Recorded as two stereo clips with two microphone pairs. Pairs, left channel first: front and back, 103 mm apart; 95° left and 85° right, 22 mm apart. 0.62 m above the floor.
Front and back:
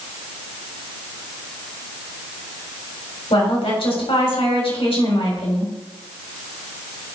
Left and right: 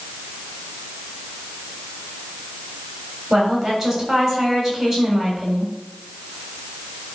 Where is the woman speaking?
20° right, 3.5 m.